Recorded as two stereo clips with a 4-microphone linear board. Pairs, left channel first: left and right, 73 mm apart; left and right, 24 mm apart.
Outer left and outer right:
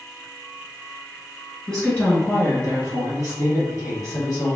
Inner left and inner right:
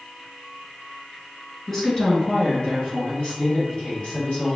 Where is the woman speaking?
10° left (ahead or behind), 1.2 m; by 4.6 s 55° left (ahead or behind), 2.5 m.